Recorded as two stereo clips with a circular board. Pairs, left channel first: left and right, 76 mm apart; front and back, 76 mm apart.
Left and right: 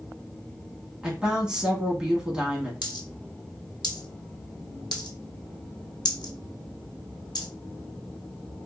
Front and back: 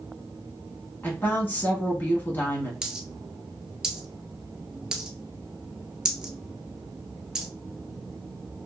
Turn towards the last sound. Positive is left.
turn(degrees=100)